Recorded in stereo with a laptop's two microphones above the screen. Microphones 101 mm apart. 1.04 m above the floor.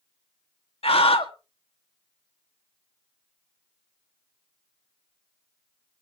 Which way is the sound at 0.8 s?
75° left (ahead or behind).